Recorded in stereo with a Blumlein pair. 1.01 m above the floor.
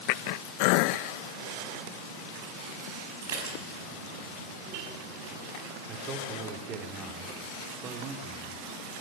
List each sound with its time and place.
3.2 s dishes clattering: 60° right, 5.5 m
5.9 s a man speaking: 30° right, 3 m